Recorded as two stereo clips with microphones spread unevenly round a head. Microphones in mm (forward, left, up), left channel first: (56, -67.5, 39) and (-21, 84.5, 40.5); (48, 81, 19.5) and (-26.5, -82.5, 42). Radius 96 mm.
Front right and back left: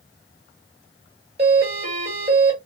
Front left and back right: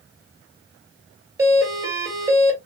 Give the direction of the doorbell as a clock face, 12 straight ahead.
6 o'clock.